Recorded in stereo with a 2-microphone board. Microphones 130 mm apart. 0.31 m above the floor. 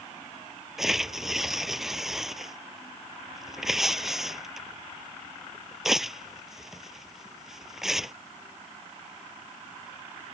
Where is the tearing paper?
5° right (ahead or behind).